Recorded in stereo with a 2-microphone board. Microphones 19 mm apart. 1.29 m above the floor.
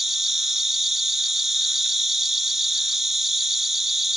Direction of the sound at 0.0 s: 10° right (ahead or behind).